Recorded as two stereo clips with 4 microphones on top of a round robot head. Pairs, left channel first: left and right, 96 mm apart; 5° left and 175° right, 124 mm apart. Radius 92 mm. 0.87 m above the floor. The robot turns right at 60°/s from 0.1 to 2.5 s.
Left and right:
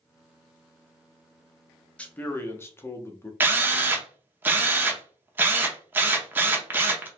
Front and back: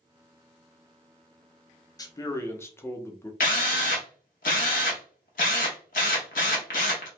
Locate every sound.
2.0 s a man speaking: 25° left, 0.7 m; by 3.3 s 55° left, 0.7 m
3.4 s a drill: 25° right, 0.5 m